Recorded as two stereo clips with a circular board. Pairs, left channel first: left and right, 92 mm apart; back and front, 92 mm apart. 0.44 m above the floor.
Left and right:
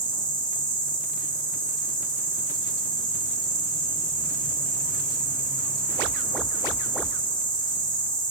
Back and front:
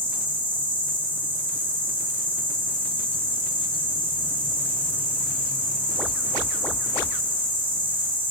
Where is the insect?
65° left, 1.4 m.